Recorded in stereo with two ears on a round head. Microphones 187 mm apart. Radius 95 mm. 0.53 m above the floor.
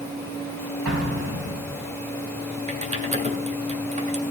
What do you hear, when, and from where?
0.8 s an explosion: 65° right (ahead or behind), 3.5 m
2.7 s typing on a keyboard: 30° right (ahead or behind), 1.7 m